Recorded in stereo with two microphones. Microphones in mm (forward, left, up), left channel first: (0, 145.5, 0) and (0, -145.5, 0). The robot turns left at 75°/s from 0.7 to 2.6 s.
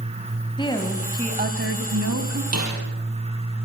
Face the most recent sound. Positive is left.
turn(degrees=-65)  # may be behind; listen again after turning